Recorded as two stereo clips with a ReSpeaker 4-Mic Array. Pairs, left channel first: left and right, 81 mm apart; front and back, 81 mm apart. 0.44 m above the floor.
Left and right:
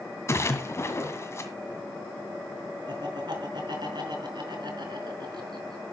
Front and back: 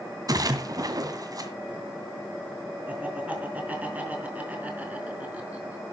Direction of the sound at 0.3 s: 145° left.